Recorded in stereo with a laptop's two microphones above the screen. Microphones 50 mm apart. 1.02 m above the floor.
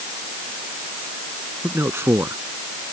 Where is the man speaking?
55° right (ahead or behind).